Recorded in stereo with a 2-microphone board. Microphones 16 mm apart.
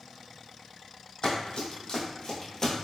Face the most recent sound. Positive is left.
turn(degrees=25)  # may be behind; listen again after turning